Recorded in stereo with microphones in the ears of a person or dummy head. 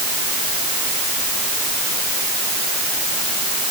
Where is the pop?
I don't hear a pop.